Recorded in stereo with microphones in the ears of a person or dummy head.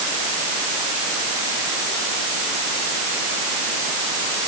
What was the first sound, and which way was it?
Only background noise.